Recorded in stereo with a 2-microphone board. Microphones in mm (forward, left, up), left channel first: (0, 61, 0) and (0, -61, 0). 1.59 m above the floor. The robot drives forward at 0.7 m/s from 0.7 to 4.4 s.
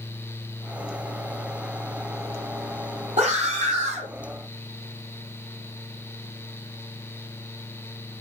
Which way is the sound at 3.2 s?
75° right (ahead or behind).